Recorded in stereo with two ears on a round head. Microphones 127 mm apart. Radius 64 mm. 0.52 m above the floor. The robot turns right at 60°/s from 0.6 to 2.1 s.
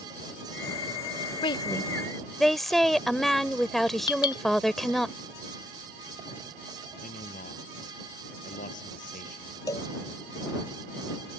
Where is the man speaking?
60° left (ahead or behind).